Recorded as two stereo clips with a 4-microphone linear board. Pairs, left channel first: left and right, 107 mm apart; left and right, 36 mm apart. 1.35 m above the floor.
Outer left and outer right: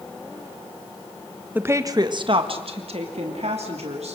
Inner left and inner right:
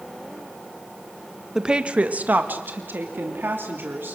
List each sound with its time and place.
1.6 s a woman speaking: 15° right (ahead or behind), 1.2 m; by 4.2 s 80° right, 3.5 m